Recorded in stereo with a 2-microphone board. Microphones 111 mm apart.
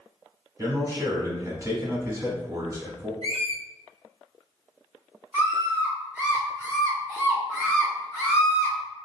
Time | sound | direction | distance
0.6 | a man speaking | 30° right (ahead or behind) | 1.1 m
3.2 | a squeak | 55° right (ahead or behind) | 1.8 m
5.3 | a scream | 15° right (ahead or behind) | 1.1 m